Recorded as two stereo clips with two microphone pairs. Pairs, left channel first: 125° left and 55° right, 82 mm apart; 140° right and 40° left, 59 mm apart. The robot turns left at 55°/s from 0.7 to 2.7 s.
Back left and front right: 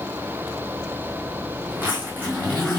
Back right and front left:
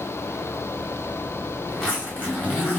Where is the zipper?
70° right, 1.8 m; by 2.8 s 125° right, 1.8 m.